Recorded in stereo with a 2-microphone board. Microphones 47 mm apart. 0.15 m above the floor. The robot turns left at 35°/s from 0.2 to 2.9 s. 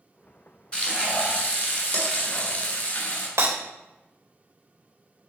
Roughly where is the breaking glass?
Right.